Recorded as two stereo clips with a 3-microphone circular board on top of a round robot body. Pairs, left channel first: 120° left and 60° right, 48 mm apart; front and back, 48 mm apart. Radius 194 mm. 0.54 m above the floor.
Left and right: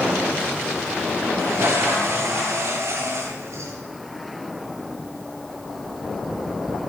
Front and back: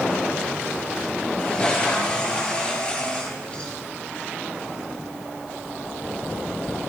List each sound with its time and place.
1.4 s a toilet flushing: 65° right, 8.5 m